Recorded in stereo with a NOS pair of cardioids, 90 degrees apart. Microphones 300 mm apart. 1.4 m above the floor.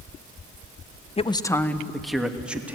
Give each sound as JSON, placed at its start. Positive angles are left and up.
{"t": 1.2, "sound": "a man speaking", "azimuth_deg": 20, "distance_m": 1.0}